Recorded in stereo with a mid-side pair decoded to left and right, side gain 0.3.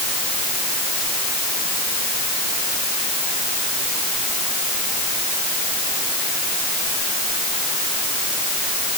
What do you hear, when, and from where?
Only background noise.